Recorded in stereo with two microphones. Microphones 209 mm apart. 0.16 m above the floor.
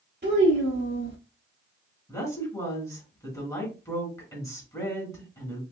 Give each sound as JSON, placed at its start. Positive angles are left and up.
{"t": 0.2, "sound": "a child speaking", "side_deg": -55, "distance_m": 1.4}
{"t": 2.1, "sound": "a woman speaking", "side_deg": 15, "distance_m": 1.8}